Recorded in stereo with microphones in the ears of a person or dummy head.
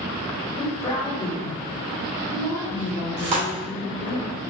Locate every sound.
0.6 s a woman speaking: 30° left (ahead or behind), 1.9 m
3.2 s tearing paper: 60° right (ahead or behind), 1.5 m